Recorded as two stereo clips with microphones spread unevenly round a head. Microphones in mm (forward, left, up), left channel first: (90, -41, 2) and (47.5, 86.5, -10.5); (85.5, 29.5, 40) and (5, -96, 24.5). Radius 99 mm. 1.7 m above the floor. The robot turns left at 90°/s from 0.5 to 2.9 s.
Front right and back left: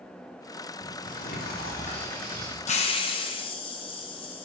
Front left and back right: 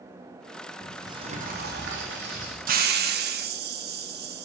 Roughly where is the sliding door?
Ahead right.